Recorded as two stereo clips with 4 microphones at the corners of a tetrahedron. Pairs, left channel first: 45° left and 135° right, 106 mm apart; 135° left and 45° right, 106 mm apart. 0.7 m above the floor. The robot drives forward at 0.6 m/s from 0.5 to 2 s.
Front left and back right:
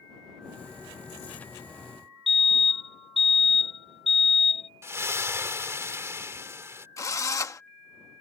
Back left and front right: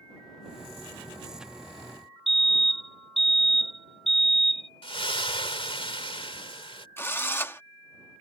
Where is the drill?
80° left.